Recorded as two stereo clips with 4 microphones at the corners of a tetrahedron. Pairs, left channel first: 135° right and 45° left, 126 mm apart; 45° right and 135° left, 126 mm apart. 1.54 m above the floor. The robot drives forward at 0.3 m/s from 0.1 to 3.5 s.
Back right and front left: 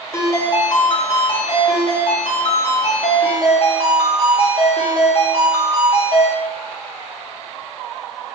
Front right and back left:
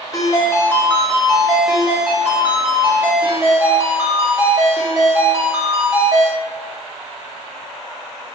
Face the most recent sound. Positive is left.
turn(degrees=-160)